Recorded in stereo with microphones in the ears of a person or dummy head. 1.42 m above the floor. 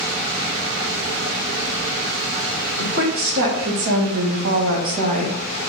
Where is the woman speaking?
55° right (ahead or behind), 1.4 m; by 5.3 s 35° right (ahead or behind), 0.7 m.